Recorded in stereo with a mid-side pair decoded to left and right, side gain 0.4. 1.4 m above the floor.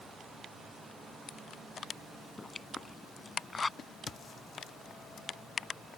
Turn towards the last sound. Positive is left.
turn(degrees=55)